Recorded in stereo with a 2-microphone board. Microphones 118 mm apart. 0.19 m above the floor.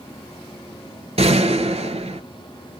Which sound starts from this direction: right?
A gunshot, at 1.2 s.